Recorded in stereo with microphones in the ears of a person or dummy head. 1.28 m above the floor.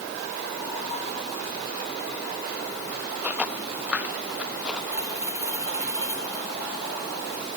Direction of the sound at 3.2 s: 15° right (ahead or behind).